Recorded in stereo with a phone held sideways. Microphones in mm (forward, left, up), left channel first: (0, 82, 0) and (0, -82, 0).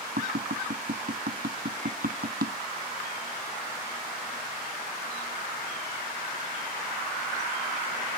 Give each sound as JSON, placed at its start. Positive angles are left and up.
{"t": 0.2, "sound": "tapping", "side_deg": -75}